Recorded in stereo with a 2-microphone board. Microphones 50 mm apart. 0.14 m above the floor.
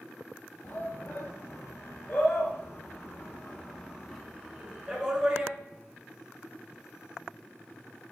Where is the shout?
50° left (ahead or behind), 3.5 m; by 5.5 s 15° right (ahead or behind), 2.5 m.